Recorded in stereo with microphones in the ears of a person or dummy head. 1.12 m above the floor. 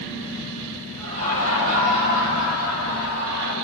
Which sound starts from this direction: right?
Laughter, at 1.0 s.